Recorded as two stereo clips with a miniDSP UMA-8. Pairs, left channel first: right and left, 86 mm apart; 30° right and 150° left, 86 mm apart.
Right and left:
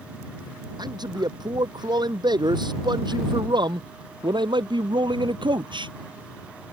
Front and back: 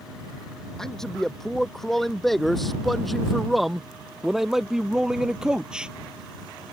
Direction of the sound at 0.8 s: 55° left.